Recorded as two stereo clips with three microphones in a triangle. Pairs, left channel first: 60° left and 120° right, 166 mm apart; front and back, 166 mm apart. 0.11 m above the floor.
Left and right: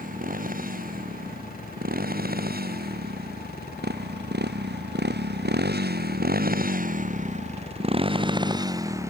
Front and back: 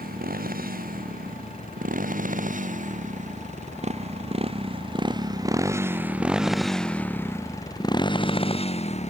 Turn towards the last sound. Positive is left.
turn(degrees=-45)